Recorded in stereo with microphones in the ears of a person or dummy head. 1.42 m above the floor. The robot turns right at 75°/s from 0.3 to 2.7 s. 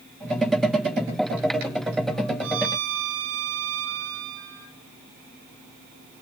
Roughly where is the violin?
Right.